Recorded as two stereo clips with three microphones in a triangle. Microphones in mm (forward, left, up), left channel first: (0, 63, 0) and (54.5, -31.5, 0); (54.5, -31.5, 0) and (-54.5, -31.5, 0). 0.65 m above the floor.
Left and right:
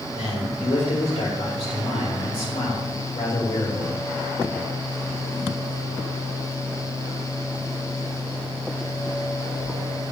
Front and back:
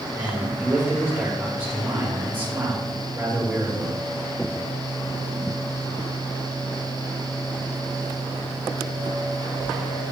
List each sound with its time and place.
0.1 s a man speaking: 110° left, 3 m